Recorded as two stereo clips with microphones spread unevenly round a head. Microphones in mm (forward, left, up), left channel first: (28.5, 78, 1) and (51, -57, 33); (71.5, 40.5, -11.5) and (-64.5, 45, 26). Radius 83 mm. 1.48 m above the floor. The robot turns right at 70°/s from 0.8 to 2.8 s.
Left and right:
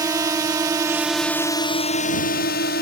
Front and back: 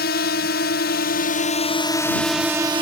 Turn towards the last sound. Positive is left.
turn(degrees=125)